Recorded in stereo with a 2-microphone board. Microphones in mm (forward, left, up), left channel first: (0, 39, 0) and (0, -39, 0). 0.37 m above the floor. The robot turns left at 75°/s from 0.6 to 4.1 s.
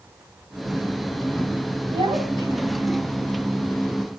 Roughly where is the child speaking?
Right.